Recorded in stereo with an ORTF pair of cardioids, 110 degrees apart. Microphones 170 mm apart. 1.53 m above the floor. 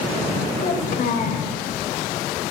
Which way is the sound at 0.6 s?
60° left.